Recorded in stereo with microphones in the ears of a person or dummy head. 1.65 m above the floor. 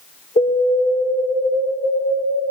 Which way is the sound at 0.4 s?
40° left (ahead or behind).